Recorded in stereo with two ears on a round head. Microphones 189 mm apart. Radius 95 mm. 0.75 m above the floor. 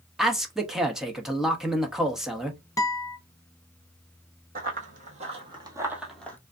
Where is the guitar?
15° left (ahead or behind), 0.8 m.